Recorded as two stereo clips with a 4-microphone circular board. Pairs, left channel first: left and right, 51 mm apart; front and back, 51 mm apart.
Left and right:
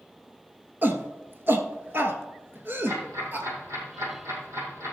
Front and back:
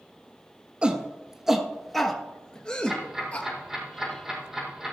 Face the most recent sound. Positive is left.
turn(degrees=-100)